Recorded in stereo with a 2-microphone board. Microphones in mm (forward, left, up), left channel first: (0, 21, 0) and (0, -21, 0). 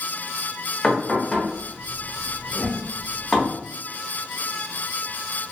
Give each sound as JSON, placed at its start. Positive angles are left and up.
{"t": 0.8, "sound": "knocking", "side_deg": 15, "distance_m": 0.8}
{"t": 2.5, "sound": "a whoosh", "side_deg": 25, "distance_m": 0.9}